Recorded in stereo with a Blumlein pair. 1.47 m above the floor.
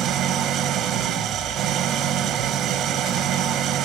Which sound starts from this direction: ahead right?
An engine running, at 0.0 s.